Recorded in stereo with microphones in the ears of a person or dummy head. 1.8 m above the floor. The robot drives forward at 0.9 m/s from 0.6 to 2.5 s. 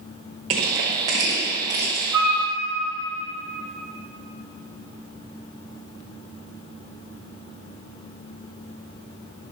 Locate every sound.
0.5 s crushing: 20° right (ahead or behind), 1.0 m; by 2.0 s 10° right (ahead or behind), 1.7 m
2.1 s a flute: 15° right (ahead or behind), 1.5 m; by 2.4 s 10° right (ahead or behind), 1.8 m